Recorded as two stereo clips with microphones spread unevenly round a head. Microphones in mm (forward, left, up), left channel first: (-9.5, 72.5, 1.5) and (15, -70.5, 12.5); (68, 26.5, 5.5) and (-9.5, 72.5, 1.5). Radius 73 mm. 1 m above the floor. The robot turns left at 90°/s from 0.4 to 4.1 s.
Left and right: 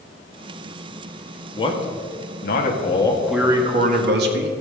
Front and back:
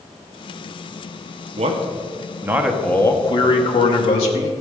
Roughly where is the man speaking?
Behind.